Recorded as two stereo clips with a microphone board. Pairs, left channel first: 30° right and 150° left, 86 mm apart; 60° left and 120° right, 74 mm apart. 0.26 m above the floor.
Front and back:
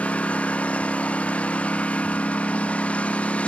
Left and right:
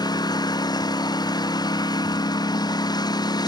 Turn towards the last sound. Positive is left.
turn(degrees=45)